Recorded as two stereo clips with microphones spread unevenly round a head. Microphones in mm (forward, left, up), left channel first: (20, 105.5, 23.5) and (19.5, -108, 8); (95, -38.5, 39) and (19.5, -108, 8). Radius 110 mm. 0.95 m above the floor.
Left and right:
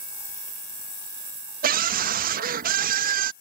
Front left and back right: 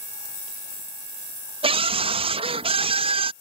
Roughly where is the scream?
Behind right.